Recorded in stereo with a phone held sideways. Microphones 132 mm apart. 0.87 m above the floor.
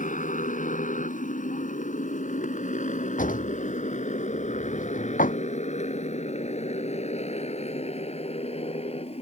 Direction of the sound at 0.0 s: 85° left.